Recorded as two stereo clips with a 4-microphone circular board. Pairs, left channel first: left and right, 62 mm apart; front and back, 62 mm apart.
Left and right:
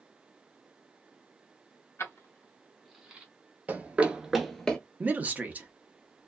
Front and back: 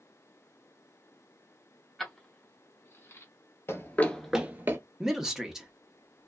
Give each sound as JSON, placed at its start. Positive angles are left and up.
{"t": 2.0, "sound": "keys jangling", "azimuth_deg": 85, "distance_m": 0.8}
{"t": 3.7, "sound": "running footsteps", "azimuth_deg": -35, "distance_m": 0.8}
{"t": 5.0, "sound": "a man speaking", "azimuth_deg": -110, "distance_m": 0.7}